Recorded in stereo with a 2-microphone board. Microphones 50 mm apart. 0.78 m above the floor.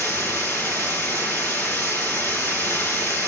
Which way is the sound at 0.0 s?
55° left (ahead or behind).